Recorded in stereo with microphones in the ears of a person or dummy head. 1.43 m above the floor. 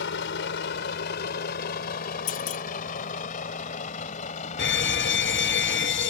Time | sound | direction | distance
0.0 | a vehicle | 75° left (ahead or behind) | ?
2.3 | a clunk | 50° left (ahead or behind) | ?
4.6 | a fire alarm | 60° left (ahead or behind) | ?